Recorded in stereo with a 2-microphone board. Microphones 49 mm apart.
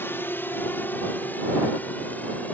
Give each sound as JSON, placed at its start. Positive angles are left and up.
{"t": 0.0, "sound": "a drone", "side_deg": 45}